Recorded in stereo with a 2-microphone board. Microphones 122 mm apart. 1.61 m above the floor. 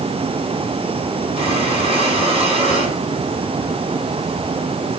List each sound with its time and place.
1.4 s breathing: 50° right (ahead or behind), 7.5 m